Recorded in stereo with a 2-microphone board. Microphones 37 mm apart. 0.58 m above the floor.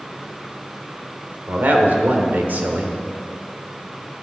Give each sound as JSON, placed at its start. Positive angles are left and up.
{"t": 1.5, "sound": "a man speaking", "side_deg": -55, "distance_m": 1.6}